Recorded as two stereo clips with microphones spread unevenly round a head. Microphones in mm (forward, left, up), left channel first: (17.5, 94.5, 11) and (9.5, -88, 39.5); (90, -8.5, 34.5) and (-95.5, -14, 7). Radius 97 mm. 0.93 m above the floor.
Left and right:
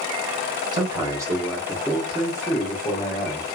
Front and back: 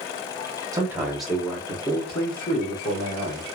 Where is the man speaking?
150° right, 1.0 m; by 3.5 s 20° left, 1.4 m.